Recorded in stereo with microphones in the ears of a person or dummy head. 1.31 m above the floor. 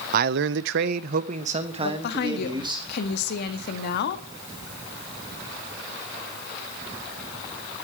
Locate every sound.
0.1 s a man speaking: 55° right (ahead or behind), 0.7 m; by 2.8 s 20° right (ahead or behind), 2 m
1.8 s a woman speaking: 55° left (ahead or behind), 1.8 m